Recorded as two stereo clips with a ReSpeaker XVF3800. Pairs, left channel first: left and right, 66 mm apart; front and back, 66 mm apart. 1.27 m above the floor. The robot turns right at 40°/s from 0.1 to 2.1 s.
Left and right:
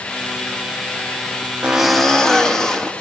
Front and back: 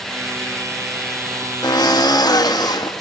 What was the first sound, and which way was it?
A drill, 15° right.